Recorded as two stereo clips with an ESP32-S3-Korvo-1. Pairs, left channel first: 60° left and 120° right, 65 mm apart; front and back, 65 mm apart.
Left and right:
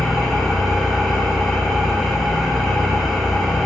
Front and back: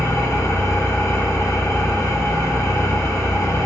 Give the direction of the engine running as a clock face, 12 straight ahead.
1 o'clock.